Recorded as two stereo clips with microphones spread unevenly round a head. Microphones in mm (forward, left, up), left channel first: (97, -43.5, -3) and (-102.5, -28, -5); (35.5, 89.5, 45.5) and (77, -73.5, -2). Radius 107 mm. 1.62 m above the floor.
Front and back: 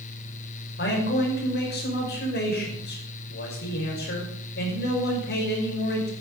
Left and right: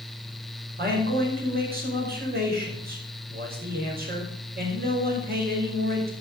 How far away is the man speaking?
About 5.5 m.